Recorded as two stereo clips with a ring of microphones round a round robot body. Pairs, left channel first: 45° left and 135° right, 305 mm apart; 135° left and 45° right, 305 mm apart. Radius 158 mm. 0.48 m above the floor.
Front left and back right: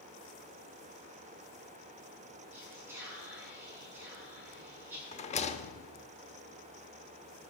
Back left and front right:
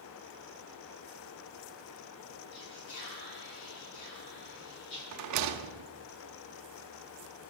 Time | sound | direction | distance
2.5 | whispering | 140° left | 7.5 m
5.1 | a rattle | 20° right | 0.8 m